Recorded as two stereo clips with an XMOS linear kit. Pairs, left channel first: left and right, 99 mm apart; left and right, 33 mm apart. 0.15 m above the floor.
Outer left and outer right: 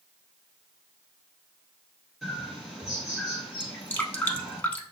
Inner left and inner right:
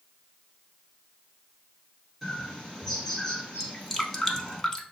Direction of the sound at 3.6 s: 15° left (ahead or behind).